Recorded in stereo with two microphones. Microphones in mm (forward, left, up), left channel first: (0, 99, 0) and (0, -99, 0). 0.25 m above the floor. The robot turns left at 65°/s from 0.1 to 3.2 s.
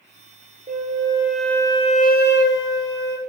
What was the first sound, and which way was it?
A flute, 135° right.